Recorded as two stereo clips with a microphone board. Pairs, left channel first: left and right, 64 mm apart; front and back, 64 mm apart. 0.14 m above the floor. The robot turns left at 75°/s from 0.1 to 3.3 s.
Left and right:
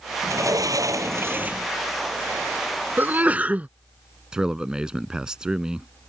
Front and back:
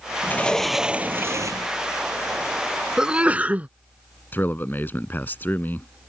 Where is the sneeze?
110° right; by 3.7 s 135° right.